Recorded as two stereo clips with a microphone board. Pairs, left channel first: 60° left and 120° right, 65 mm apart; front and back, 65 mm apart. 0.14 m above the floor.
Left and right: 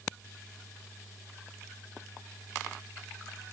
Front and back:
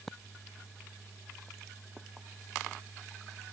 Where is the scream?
I don't hear a scream.